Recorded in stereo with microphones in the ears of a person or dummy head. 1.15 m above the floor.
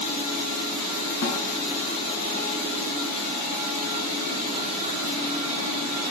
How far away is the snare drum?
About 3 m.